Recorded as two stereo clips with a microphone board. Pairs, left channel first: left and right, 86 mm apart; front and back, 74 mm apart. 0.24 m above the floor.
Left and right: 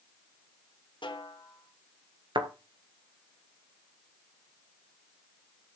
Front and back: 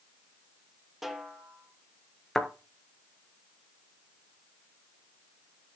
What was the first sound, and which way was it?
A snare drum, 95° left.